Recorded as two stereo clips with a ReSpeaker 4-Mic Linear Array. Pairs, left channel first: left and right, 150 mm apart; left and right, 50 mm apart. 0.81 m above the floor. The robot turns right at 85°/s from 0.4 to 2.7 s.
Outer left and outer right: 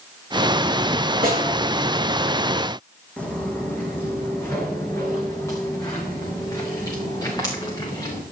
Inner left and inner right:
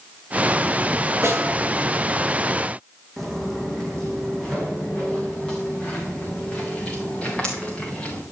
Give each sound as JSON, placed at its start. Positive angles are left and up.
{"t": 1.2, "sound": "a snare drum", "side_deg": -80, "distance_m": 7.0}
{"t": 3.2, "sound": "footsteps", "side_deg": 10, "distance_m": 2.5}